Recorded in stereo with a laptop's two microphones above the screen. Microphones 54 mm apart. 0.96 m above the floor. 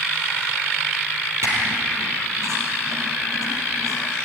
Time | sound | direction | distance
1.4 | a squeak | 65° right (ahead or behind) | 5 m